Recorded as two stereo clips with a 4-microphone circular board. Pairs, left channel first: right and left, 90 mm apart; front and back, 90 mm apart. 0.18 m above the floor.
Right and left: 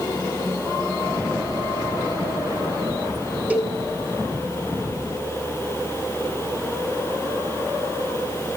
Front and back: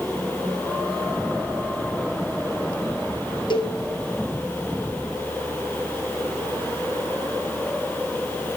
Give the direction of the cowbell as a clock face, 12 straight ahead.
11 o'clock.